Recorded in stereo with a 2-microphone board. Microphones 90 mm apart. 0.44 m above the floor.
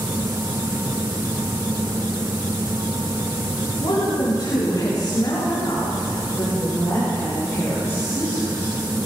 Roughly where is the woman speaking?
Left.